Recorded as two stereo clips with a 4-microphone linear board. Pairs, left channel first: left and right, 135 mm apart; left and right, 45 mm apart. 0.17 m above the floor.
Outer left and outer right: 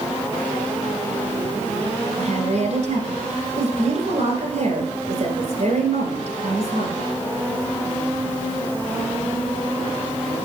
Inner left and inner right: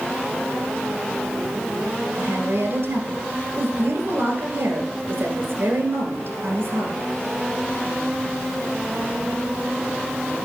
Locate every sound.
2.2 s a woman speaking: 60° right (ahead or behind), 1.9 m